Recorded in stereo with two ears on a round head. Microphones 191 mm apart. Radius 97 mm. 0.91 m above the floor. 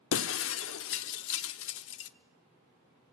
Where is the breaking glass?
65° left (ahead or behind), 0.8 m.